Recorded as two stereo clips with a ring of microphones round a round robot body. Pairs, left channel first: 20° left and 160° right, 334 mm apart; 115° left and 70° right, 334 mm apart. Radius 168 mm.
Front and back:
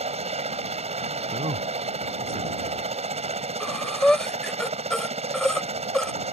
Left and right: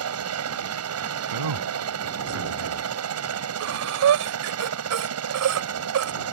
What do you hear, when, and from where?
0.0 s a helicopter: 90° right
1.3 s a man speaking: 85° right
3.6 s breathing: 65° right